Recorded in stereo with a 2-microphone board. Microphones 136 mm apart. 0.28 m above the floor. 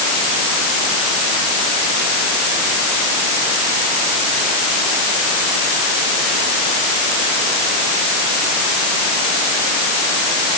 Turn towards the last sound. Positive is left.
No sound to turn to.